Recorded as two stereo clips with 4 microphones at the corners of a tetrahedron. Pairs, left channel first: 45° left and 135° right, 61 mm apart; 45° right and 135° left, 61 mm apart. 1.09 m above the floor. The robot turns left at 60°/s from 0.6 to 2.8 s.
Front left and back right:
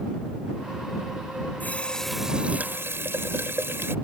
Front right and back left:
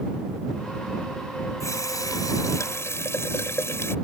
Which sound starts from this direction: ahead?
A running tap, at 1.6 s.